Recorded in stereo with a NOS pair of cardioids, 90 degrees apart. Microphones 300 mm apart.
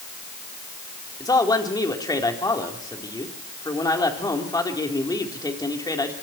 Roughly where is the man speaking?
Ahead.